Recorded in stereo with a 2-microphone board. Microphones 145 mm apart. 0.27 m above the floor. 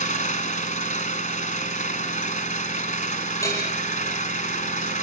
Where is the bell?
20° left (ahead or behind), 7.5 m.